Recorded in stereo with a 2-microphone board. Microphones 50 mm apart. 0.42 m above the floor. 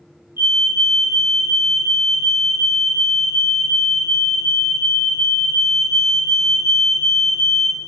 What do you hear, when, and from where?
0.4 s a fire alarm: 55° right (ahead or behind), 7.5 m